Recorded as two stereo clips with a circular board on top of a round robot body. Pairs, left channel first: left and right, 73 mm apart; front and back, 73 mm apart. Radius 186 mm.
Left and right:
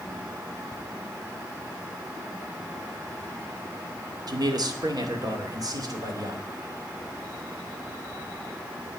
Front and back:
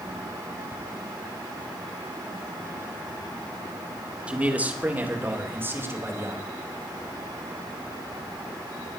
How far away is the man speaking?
About 2 m.